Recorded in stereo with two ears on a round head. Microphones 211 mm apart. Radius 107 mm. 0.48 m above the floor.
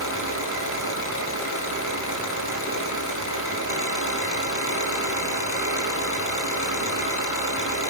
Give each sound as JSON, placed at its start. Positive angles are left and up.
{"t": 0.0, "sound": "an engine running", "side_deg": 65, "distance_m": 7.5}